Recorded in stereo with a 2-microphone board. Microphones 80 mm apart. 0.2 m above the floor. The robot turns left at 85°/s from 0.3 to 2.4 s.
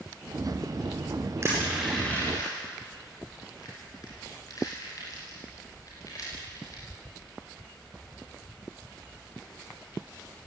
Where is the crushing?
40° right (ahead or behind), 10 m; by 6.8 s 45° left (ahead or behind), 10 m.